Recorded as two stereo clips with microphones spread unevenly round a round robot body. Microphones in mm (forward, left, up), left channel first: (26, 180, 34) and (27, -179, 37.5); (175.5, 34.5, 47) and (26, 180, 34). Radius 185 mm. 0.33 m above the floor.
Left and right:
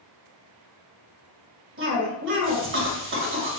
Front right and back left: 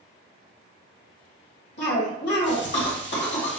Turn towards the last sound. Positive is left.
turn(degrees=-40)